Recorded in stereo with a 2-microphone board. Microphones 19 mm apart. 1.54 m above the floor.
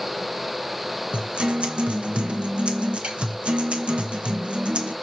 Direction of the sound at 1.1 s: 65° right (ahead or behind).